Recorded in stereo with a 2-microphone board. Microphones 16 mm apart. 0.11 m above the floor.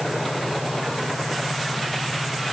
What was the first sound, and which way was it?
Only background noise.